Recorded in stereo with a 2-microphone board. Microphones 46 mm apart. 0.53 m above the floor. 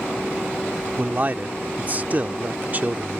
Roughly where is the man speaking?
Right.